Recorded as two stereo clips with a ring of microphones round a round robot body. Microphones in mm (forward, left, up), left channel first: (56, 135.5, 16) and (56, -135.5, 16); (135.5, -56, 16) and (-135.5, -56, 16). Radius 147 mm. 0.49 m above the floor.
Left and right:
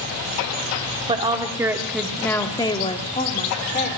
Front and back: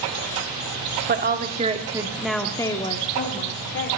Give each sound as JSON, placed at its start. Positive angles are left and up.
{"t": 1.1, "sound": "a woman speaking", "azimuth_deg": -150, "distance_m": 1.4}